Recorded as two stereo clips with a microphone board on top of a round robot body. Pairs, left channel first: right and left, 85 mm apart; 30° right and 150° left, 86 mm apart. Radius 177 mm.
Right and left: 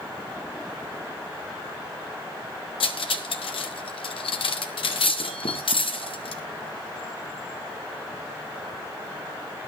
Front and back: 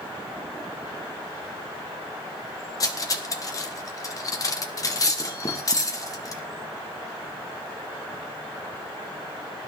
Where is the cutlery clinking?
80° right, 1.3 m.